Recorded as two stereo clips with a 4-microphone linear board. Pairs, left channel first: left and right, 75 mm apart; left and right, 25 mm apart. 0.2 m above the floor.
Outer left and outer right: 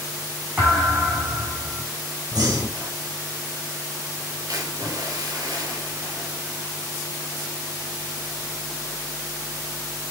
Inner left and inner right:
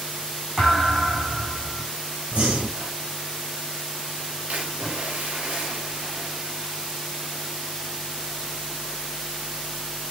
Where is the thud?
20° right (ahead or behind), 5 m.